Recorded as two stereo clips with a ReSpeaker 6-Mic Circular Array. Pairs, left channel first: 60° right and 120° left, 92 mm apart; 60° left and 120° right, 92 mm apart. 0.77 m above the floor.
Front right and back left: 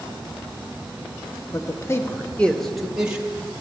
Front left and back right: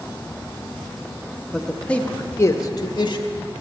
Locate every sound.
1.5 s a man speaking: 30° right, 0.9 m; by 3.2 s 45° left, 1.0 m